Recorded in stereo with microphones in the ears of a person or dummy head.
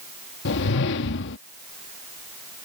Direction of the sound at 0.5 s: 60° left (ahead or behind).